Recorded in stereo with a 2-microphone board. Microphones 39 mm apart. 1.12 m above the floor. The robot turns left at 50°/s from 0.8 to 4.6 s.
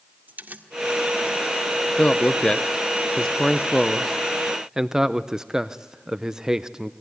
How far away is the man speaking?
About 0.7 m.